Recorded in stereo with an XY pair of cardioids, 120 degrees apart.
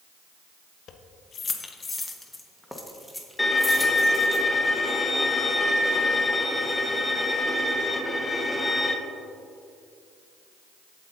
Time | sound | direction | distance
0.9 | keys jangling | 55° left | 0.9 m
3.4 | a violin | 10° left | 1.1 m